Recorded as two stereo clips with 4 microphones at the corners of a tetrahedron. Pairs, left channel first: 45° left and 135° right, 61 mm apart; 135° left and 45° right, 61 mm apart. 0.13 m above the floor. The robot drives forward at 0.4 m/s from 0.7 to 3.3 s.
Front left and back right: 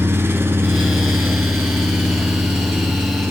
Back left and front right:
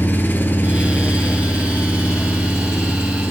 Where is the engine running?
175° right, 1.1 m.